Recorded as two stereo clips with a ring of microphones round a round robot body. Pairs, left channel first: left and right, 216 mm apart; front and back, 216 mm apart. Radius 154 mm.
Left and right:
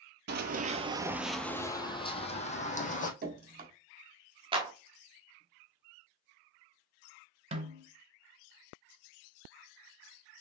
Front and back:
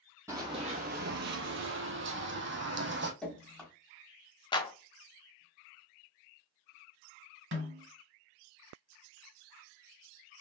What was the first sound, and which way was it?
Running footsteps, 105° right.